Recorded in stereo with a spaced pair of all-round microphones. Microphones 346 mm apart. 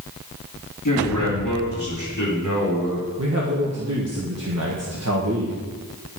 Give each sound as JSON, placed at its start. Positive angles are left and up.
{"t": 0.8, "sound": "a man speaking", "side_deg": 65, "distance_m": 2.5}
{"t": 3.2, "sound": "a man speaking", "side_deg": -45, "distance_m": 1.4}